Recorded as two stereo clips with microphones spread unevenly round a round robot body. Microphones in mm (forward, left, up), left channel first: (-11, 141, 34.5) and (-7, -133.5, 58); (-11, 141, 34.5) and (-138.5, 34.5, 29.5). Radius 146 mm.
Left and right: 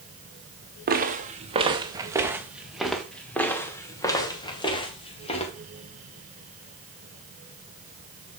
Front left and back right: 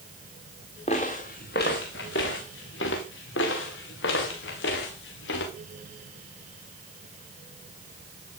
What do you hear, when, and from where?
0.9 s footsteps: 30° right, 1.7 m; by 5.5 s 20° left, 3.5 m